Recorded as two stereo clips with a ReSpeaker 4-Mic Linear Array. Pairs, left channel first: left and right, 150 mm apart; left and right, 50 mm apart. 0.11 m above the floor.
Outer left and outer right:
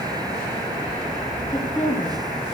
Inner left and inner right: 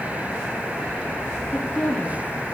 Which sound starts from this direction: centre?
A woman speaking, at 1.5 s.